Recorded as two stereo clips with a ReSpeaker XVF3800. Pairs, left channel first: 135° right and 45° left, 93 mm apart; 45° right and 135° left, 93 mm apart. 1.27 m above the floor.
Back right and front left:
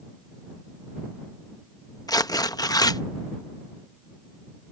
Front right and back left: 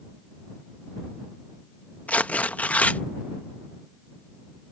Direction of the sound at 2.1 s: 115° right.